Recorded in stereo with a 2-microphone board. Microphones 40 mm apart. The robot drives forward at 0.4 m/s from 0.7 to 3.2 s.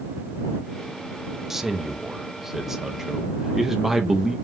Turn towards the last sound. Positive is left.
turn(degrees=-10)  # may be behind; listen again after turning